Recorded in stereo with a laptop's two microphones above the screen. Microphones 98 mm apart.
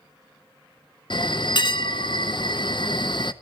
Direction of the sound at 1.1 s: 55° left (ahead or behind).